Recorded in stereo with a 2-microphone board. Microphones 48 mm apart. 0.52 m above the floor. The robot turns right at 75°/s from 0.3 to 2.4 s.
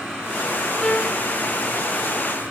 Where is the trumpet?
10° left, 4.5 m; by 1.2 s 40° left, 4.5 m.